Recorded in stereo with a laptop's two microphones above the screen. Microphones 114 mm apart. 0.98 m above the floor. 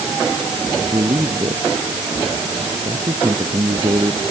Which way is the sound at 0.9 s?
40° right (ahead or behind).